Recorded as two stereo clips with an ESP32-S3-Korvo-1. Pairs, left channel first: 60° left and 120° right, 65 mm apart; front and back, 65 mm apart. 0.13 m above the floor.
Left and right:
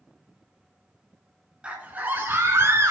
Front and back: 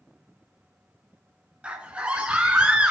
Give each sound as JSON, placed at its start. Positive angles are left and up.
{"t": 1.6, "sound": "a scream", "azimuth_deg": -150, "distance_m": 1.1}